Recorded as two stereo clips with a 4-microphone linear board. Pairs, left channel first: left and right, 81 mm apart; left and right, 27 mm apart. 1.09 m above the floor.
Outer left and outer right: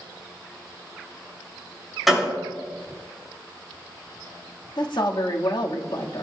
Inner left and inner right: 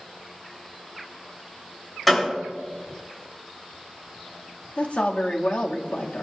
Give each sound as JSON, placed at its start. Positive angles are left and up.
{"t": 2.1, "sound": "a gunshot", "side_deg": 0, "distance_m": 6.0}
{"t": 4.8, "sound": "a woman speaking", "side_deg": 70, "distance_m": 1.8}